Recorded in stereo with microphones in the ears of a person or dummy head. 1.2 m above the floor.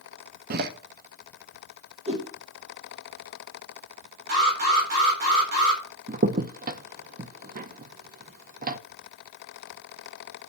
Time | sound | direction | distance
0.5 | a door slam | 55° right (ahead or behind) | 1.1 m
2.1 | a whoosh | 35° right (ahead or behind) | 3 m
4.3 | an alarm | 60° right (ahead or behind) | 4 m
6.1 | a crack | 45° right (ahead or behind) | 0.6 m